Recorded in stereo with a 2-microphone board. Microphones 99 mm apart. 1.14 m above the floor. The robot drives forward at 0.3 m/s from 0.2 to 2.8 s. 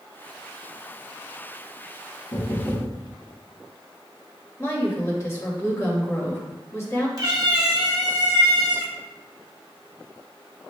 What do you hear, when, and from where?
2.3 s knocking: 35° left (ahead or behind), 1.0 m; by 3.0 s 30° left (ahead or behind), 1.1 m
4.6 s a woman speaking: 30° left (ahead or behind), 1.5 m
7.2 s a cat meowing: 40° right (ahead or behind), 1.1 m